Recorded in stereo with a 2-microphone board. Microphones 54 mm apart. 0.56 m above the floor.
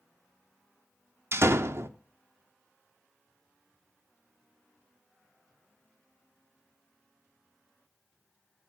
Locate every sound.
1.3 s a door slam: 50° right (ahead or behind), 0.5 m